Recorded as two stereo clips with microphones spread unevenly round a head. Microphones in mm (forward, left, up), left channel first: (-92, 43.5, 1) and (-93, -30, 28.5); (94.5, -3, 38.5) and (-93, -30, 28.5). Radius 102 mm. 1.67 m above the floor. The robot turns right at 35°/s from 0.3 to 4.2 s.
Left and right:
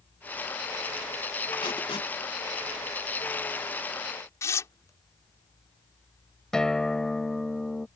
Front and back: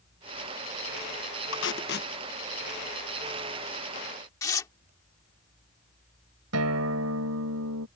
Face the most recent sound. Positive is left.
turn(degrees=180)